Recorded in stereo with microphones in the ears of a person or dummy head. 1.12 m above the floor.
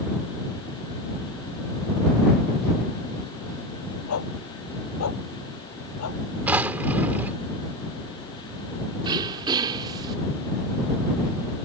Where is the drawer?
5° right (ahead or behind).